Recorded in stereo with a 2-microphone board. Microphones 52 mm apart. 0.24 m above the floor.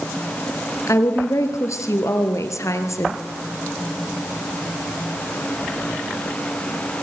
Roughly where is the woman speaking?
Left.